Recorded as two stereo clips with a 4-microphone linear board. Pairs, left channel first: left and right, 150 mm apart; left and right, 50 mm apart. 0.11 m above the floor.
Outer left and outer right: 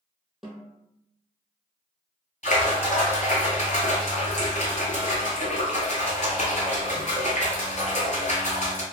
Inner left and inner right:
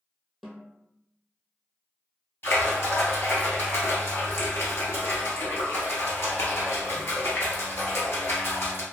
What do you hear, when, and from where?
0.4 s a snare drum: centre (ahead or behind), 0.8 m
2.4 s a splash: 55° left (ahead or behind), 0.9 m